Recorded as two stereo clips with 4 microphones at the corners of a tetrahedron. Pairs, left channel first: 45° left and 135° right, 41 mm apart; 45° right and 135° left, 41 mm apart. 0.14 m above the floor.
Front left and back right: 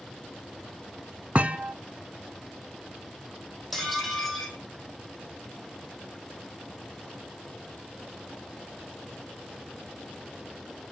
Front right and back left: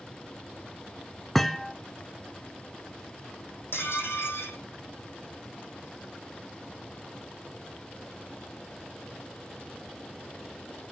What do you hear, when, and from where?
1.4 s a thud: 120° right, 0.7 m
3.7 s dishes clattering: 45° right, 3.5 m